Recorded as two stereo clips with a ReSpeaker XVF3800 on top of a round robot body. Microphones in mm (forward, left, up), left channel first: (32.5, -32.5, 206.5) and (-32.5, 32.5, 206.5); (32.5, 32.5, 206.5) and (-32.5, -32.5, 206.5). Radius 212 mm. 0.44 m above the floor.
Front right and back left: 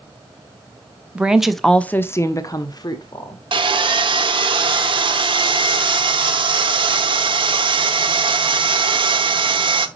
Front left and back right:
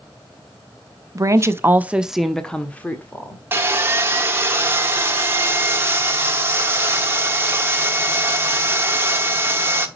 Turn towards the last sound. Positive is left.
turn(degrees=160)